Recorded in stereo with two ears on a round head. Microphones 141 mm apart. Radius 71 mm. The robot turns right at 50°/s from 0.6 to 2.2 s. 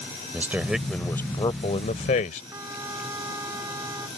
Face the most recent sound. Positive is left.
turn(degrees=-20)  # may be behind; listen again after turning